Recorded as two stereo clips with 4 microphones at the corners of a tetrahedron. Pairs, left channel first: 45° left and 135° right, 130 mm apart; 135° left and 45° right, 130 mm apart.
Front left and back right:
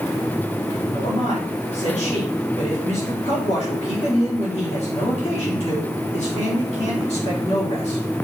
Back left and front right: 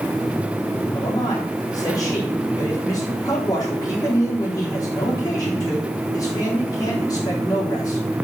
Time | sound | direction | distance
0.9 | a man speaking | 75° left | 4 m